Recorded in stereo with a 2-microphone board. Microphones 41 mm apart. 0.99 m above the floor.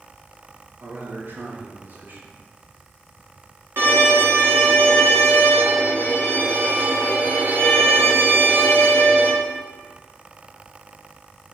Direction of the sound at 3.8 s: 70° right (ahead or behind).